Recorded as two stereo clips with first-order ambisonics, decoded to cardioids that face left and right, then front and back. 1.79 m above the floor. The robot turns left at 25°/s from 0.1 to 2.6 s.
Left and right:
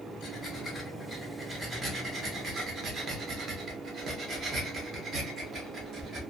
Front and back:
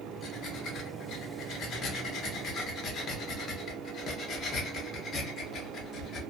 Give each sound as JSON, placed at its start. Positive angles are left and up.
{"t": 0.2, "sound": "breathing", "azimuth_deg": 15, "distance_m": 0.8}